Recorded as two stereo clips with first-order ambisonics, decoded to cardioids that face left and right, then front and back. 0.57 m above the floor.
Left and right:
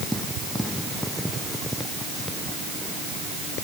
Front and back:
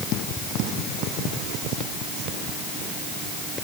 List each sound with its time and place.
Only background noise.